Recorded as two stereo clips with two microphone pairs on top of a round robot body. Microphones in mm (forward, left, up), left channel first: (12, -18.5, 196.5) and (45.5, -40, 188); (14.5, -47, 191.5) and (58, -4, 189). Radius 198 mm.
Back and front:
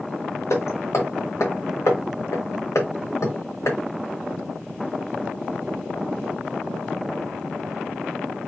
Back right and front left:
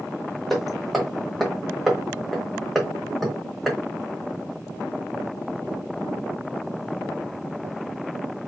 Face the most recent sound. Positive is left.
turn(degrees=135)